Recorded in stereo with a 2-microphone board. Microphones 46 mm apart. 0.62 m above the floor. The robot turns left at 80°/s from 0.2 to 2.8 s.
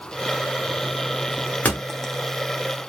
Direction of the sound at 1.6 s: 35° left (ahead or behind).